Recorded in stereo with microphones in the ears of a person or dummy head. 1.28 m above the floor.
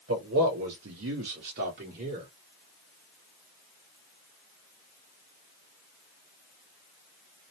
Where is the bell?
I don't hear a bell.